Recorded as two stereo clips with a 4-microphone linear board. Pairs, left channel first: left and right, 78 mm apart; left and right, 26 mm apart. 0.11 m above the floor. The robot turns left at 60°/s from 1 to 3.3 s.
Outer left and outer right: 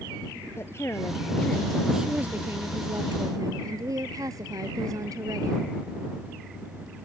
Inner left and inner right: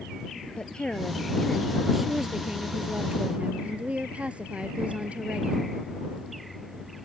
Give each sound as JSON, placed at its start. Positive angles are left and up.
{"t": 0.6, "sound": "a woman speaking", "azimuth_deg": 50}